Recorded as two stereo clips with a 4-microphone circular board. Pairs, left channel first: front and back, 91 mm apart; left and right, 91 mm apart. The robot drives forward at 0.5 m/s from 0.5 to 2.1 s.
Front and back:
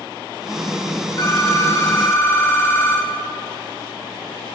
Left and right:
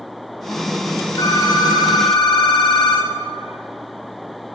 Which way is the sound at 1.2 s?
45° left.